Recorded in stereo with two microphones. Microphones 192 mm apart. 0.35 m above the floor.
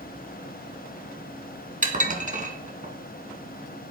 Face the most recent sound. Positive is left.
turn(degrees=-45)  # may be behind; listen again after turning